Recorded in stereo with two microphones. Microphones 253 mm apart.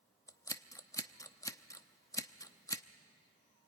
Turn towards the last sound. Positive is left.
turn(degrees=15)  # may be behind; listen again after turning